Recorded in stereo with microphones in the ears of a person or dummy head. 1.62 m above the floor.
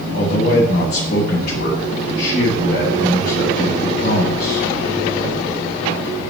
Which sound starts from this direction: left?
A man speaking, at 0.1 s.